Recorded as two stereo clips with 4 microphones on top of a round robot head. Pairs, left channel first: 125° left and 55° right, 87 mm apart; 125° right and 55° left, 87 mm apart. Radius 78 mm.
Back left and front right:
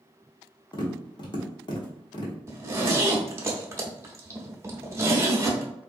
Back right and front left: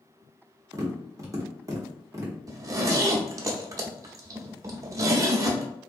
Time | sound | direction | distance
0.7 | tapping | 100° left | 1.1 m
2.5 | a zipper | 5° left | 0.6 m